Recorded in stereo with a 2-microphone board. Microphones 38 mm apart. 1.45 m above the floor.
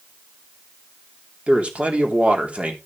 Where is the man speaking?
35° right (ahead or behind), 3 m.